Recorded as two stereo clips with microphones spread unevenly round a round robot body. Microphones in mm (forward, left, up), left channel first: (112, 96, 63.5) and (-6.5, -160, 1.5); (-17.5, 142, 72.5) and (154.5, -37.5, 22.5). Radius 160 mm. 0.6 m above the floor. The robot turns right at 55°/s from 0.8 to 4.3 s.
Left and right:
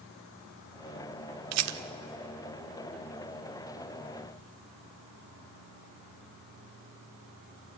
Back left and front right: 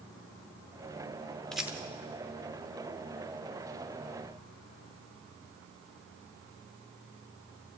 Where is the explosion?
I don't hear an explosion.